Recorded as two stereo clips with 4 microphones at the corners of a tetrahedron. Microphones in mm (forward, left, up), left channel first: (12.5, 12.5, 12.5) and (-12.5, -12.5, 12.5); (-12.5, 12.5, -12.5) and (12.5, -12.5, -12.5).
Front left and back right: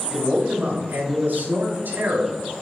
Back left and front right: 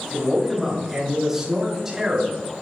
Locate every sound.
0.1 s a man speaking: 130° right, 3 m; by 2.4 s 125° right, 4 m